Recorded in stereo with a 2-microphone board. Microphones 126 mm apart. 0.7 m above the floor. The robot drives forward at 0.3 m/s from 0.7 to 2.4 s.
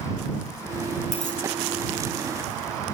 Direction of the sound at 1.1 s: 70° left (ahead or behind).